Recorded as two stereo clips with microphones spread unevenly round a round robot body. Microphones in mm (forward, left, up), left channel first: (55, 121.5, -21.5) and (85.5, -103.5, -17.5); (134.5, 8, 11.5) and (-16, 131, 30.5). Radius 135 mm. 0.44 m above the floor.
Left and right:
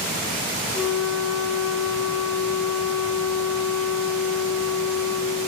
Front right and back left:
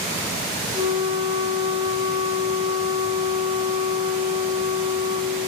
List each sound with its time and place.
0.7 s a flute: 80° left, 1.2 m